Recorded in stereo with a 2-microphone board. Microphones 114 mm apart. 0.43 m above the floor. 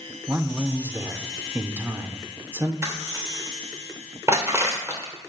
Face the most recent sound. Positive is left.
turn(degrees=-25)  # may be behind; listen again after turning